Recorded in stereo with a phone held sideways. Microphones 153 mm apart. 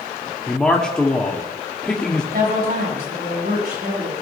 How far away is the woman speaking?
About 7 m.